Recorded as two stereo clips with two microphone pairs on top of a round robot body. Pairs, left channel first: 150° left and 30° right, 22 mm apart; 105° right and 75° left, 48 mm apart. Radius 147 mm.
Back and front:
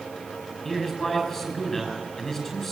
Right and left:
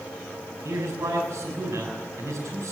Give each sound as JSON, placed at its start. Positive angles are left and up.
{"t": 0.7, "sound": "a man speaking", "azimuth_deg": 75, "distance_m": 7.0}